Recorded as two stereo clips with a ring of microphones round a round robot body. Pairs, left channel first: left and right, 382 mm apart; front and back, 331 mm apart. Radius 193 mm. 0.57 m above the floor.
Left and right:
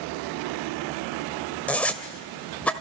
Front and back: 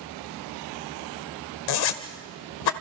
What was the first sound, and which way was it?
A zipper, 5° left.